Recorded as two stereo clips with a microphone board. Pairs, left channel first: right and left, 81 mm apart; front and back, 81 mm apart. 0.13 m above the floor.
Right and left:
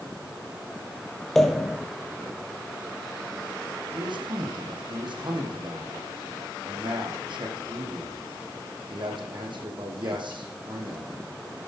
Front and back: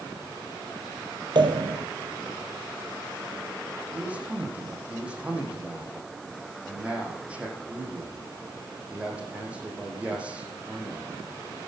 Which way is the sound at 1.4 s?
175° right.